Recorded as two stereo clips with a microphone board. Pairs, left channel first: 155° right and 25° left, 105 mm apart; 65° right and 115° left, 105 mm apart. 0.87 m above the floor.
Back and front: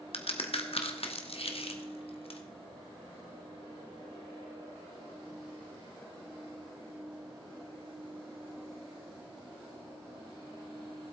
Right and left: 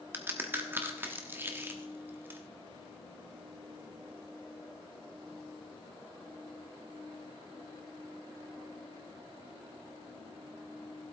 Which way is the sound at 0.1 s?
Straight behind.